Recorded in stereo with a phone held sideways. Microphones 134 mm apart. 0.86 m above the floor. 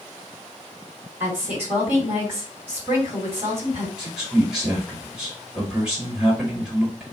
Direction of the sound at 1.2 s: 15° right (ahead or behind).